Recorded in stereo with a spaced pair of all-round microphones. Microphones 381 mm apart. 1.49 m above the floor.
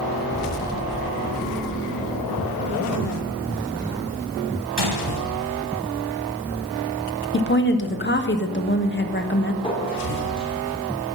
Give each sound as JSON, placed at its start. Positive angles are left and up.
{"t": 4.8, "sound": "a gunshot", "side_deg": -80, "distance_m": 1.2}
{"t": 7.3, "sound": "a woman speaking", "side_deg": 30, "distance_m": 1.1}
{"t": 9.6, "sound": "a clink", "side_deg": 15, "distance_m": 2.5}